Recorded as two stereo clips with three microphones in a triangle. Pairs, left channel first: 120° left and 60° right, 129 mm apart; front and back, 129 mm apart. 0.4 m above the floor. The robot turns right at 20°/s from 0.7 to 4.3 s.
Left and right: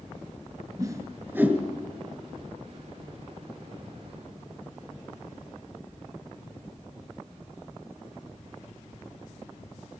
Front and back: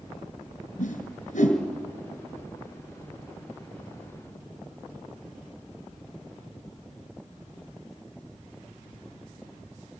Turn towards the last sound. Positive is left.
turn(degrees=75)